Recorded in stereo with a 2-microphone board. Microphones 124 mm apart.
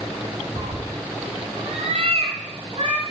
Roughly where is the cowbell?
No cowbell in this recording.